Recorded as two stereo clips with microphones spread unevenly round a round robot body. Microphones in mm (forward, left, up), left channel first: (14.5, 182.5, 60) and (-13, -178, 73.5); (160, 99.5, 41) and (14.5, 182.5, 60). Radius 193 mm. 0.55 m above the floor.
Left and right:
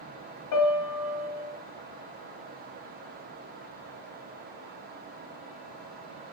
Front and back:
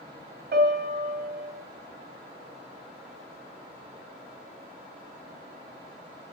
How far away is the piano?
About 1.1 m.